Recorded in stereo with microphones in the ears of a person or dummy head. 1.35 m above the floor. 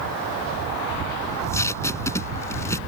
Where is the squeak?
No squeak in this recording.